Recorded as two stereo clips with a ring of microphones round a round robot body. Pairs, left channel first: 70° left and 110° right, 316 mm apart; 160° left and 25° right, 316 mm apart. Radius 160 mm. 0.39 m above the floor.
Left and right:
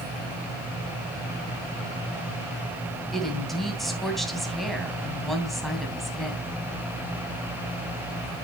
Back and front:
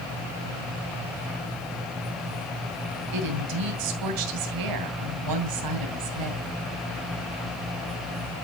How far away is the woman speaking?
About 3 m.